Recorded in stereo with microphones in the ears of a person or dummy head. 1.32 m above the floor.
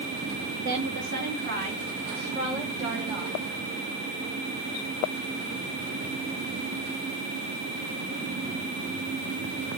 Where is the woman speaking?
60° right (ahead or behind), 2 m; by 3.4 s 30° right (ahead or behind), 5 m.